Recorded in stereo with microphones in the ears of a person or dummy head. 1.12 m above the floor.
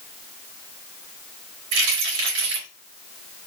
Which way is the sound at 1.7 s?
70° right (ahead or behind).